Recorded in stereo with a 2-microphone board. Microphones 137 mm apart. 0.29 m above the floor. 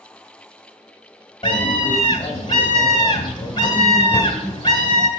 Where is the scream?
35° left (ahead or behind), 2 m.